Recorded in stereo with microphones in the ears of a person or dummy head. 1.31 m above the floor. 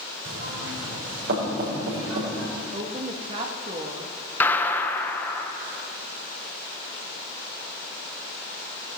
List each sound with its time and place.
0.2 s knocking: 70° right (ahead or behind), 5.5 m
2.5 s a woman speaking: 35° right (ahead or behind), 1.7 m
4.4 s a gunshot: 15° left (ahead or behind), 1.0 m